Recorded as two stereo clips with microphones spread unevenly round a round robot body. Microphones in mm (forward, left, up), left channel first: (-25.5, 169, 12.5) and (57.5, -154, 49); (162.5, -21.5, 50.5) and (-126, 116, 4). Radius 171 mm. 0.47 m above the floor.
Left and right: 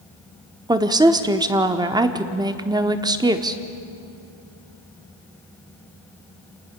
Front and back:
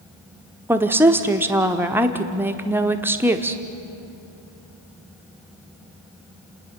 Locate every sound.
0.7 s a woman speaking: 155° right, 1.0 m